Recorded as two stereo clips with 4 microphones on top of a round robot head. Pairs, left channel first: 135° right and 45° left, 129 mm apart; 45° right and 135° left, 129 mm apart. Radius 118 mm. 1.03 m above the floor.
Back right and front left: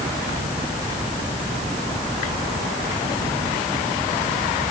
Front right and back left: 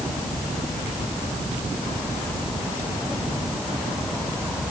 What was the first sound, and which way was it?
Only background noise.